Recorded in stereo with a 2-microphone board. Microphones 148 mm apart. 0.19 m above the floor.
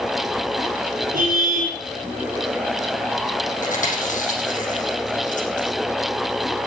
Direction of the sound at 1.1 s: 70° right (ahead or behind).